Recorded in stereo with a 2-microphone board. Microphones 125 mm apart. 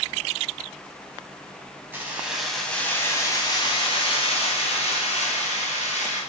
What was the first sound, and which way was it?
Keys jangling, 20° right (ahead or behind).